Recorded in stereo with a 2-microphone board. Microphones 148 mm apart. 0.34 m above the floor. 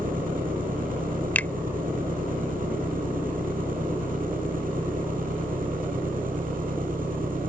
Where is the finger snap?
10° left (ahead or behind).